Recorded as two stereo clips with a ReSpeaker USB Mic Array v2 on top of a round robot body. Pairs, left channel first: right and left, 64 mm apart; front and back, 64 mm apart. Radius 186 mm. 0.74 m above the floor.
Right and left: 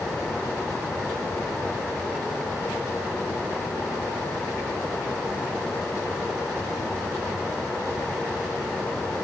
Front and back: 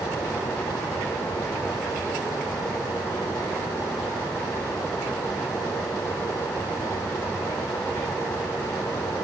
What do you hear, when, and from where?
Only background noise.